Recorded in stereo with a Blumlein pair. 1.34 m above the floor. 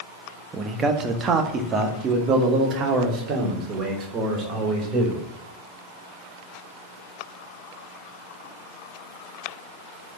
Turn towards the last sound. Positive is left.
turn(degrees=-30)